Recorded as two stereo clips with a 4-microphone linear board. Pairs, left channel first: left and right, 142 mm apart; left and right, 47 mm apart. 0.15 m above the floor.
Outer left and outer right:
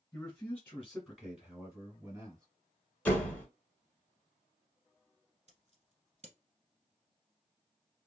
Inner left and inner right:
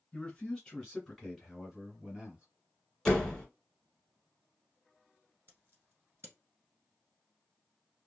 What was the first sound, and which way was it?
A man speaking, 20° left (ahead or behind).